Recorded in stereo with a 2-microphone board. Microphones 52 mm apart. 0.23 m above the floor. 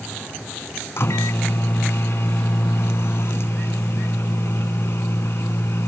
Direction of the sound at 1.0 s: 55° left (ahead or behind).